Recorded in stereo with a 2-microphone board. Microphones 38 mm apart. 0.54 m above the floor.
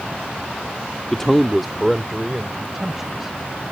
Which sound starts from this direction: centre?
A man speaking, at 1.1 s.